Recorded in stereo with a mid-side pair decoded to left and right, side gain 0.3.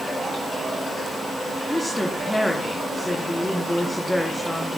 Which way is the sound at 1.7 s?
15° left.